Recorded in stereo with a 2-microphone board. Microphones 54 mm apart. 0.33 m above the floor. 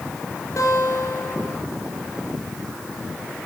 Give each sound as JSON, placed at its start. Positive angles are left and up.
{"t": 0.6, "sound": "a guitar", "side_deg": 70, "distance_m": 4.5}